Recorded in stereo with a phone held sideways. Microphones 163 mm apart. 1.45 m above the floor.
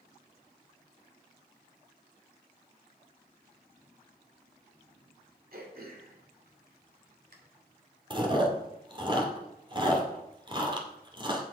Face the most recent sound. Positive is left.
turn(degrees=-30)  # may be behind; listen again after turning